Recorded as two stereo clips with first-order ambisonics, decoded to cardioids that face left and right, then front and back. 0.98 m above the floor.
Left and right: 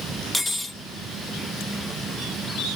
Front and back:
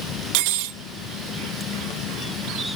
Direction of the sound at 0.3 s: 175° left.